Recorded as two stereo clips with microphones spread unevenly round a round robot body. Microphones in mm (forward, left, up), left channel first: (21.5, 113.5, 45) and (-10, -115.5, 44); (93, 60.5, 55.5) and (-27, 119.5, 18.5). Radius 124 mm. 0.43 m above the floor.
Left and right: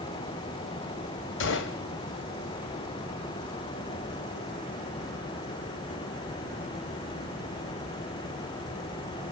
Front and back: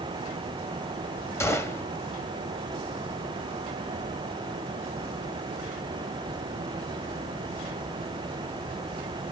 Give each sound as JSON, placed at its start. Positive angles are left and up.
{"t": 1.4, "sound": "a gunshot", "azimuth_deg": 50, "distance_m": 1.7}